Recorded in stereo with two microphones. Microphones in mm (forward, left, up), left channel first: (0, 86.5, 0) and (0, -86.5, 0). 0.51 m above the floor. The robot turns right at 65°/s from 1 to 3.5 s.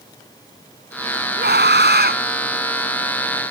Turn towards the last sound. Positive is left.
turn(degrees=25)